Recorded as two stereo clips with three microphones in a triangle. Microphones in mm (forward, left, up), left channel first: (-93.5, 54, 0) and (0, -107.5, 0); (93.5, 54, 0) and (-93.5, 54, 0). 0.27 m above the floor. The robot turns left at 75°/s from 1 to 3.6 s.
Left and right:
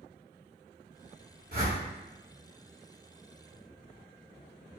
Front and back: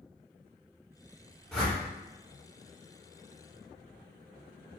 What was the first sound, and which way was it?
A whoosh, 85° right.